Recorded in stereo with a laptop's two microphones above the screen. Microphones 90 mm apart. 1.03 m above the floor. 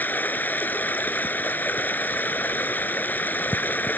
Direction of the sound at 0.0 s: 20° left (ahead or behind).